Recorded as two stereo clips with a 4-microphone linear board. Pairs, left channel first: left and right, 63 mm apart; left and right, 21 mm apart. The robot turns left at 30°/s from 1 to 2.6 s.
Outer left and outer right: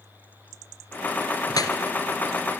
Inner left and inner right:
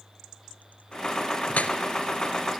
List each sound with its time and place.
1.5 s dripping: 85° left, 2.5 m; by 1.8 s 80° left, 2.5 m